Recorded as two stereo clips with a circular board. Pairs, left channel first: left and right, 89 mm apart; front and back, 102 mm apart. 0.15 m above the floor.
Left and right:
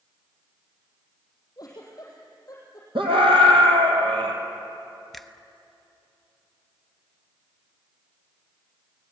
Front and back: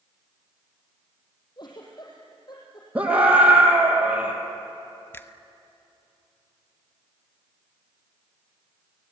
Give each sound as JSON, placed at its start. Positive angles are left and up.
{"t": 1.6, "sound": "a giggle", "azimuth_deg": 45, "distance_m": 5.0}
{"t": 3.0, "sound": "a scream", "azimuth_deg": -100, "distance_m": 4.0}
{"t": 5.1, "sound": "a finger snap", "azimuth_deg": 5, "distance_m": 0.8}